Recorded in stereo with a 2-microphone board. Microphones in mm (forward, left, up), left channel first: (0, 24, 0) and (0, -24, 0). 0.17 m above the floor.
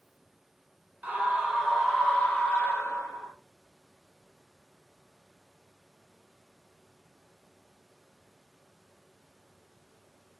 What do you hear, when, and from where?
1.0 s a scream: 35° right (ahead or behind), 1.3 m; by 3.3 s 45° left (ahead or behind), 1.7 m